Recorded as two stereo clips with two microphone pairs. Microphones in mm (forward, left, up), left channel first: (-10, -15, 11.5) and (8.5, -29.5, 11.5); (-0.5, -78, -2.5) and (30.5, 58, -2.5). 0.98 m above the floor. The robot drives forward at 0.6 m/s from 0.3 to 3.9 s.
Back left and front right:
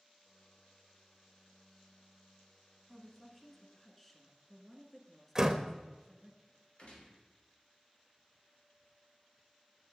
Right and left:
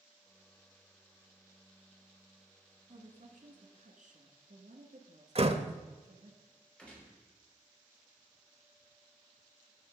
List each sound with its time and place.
2.9 s a woman speaking: 50° left, 2.5 m; by 6.3 s 65° left, 2.0 m
5.3 s a door slam: 30° left, 0.8 m
6.8 s a gunshot: 175° left, 3 m